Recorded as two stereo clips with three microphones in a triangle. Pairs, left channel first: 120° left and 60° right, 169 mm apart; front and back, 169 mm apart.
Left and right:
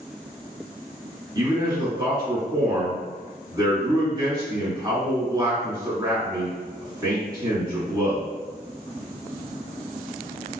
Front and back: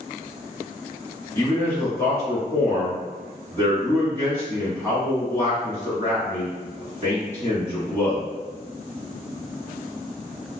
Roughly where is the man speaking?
Ahead right.